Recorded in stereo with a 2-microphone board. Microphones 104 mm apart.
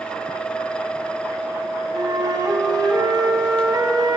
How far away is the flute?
About 1.7 m.